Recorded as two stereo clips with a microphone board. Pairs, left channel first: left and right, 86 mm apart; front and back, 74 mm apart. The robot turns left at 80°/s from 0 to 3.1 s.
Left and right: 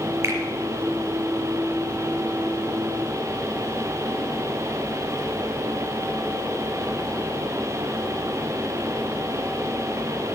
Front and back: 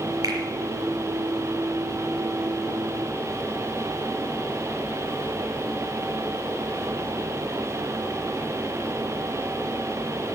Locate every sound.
0.2 s a finger snap: 145° right, 4.5 m; by 0.4 s 155° right, 4.5 m